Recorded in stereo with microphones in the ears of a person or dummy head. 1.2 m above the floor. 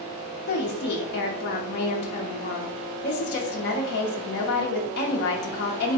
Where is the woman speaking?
55° left (ahead or behind), 0.7 m.